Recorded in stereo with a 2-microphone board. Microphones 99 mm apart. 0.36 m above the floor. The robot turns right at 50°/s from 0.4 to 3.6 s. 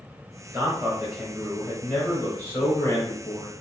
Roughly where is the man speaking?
Right.